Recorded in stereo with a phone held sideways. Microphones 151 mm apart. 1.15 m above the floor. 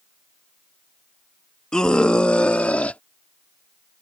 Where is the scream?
5° left (ahead or behind); by 3.0 s 10° left (ahead or behind).